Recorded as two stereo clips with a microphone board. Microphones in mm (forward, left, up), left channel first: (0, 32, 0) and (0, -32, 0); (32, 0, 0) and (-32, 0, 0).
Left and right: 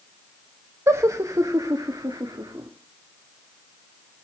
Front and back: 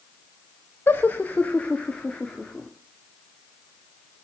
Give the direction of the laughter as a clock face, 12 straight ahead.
2 o'clock.